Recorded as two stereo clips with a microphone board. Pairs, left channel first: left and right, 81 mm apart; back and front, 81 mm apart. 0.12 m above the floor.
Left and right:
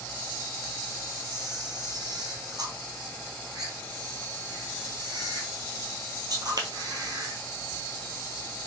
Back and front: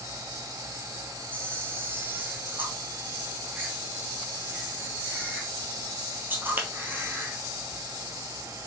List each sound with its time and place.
1.3 s a camera shutter: 60° right, 1.1 m